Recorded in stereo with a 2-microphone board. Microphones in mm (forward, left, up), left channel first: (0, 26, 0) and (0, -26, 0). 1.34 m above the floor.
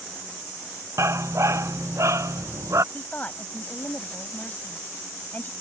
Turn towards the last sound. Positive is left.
turn(degrees=30)  # may be behind; listen again after turning